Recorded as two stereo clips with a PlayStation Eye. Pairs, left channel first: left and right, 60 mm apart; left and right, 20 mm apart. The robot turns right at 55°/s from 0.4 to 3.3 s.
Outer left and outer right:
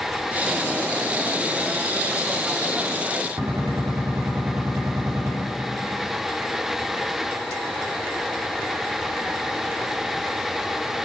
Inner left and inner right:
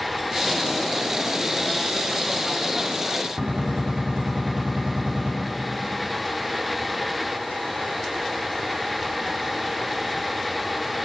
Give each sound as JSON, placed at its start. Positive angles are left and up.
{"t": 3.4, "sound": "a gunshot", "side_deg": -65, "distance_m": 2.0}